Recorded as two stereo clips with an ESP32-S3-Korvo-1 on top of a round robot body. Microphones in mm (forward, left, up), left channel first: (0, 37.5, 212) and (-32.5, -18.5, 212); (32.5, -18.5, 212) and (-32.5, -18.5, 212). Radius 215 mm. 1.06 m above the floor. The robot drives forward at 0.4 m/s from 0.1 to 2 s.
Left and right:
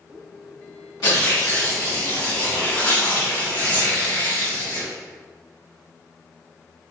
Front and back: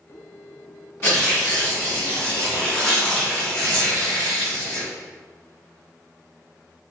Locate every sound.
1.0 s tearing paper: 50° left, 1.7 m; by 4.9 s 65° left, 1.5 m